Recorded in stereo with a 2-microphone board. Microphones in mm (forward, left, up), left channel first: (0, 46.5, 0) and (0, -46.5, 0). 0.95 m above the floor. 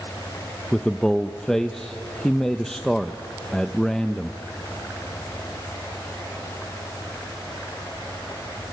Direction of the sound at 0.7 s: 5° left (ahead or behind).